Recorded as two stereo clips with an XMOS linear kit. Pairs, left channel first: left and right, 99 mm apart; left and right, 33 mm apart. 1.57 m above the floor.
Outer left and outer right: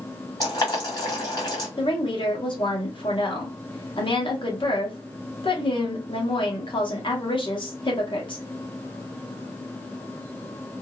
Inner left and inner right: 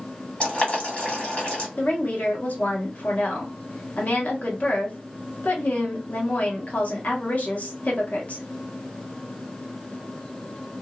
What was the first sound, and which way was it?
Boiling, 35° left (ahead or behind).